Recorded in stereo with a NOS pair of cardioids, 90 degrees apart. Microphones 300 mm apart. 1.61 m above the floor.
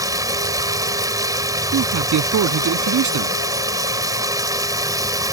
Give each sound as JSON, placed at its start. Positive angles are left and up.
{"t": 0.0, "sound": "running water", "azimuth_deg": -10}
{"t": 1.7, "sound": "a man speaking", "azimuth_deg": -65}